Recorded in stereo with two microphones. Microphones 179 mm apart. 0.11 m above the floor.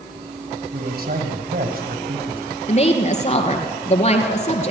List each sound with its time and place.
0.7 s a man speaking: 60° right (ahead or behind), 4 m
2.7 s a woman speaking: 40° left (ahead or behind), 2 m